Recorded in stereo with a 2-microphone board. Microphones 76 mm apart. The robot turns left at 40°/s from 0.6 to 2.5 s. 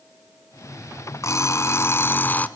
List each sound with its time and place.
1.2 s an alarm clock: 85° left, 0.9 m; by 2.5 s 35° left, 0.9 m